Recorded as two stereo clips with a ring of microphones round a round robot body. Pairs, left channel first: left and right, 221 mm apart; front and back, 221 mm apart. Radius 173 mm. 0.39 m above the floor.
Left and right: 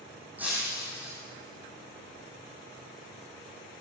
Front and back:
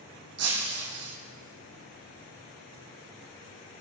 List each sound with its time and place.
0.4 s breaking glass: 175° right, 5 m